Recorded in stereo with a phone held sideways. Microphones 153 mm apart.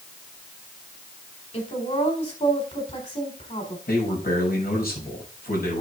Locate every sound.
1.5 s a woman speaking: 50° left (ahead or behind), 4 m
3.9 s a man speaking: 85° left, 6 m